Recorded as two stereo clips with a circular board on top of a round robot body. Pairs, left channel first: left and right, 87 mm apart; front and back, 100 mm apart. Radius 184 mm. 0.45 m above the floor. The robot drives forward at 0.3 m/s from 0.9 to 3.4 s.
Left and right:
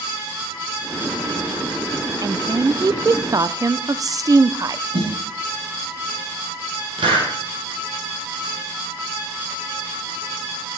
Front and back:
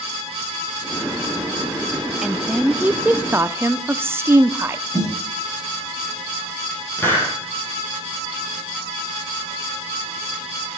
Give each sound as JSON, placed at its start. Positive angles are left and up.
{"t": 2.2, "sound": "a woman speaking", "azimuth_deg": -95, "distance_m": 1.0}
{"t": 4.9, "sound": "a snare drum", "azimuth_deg": -65, "distance_m": 7.0}
{"t": 7.0, "sound": "a hiss", "azimuth_deg": -65, "distance_m": 4.5}